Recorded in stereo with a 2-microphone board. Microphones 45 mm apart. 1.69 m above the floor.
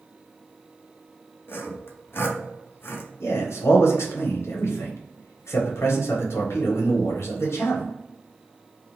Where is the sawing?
60° left (ahead or behind), 0.8 m.